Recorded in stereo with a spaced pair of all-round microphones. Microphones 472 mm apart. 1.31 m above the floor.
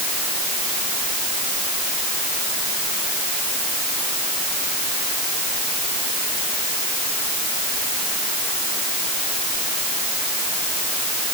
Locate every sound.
Only background noise.